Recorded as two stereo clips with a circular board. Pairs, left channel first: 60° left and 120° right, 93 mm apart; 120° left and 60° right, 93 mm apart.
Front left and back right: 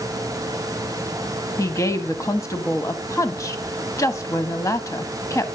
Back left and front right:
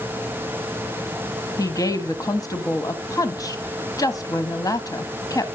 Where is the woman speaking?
95° left, 1.8 m.